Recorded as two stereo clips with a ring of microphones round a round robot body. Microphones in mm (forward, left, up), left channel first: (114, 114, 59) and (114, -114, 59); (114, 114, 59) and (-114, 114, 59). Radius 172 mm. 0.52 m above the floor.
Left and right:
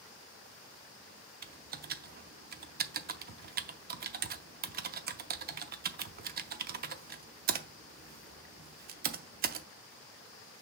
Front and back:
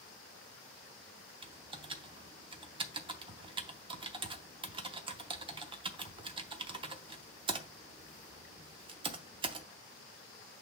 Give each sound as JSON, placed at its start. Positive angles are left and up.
{"t": 1.4, "sound": "typing on a keyboard", "azimuth_deg": -120, "distance_m": 0.5}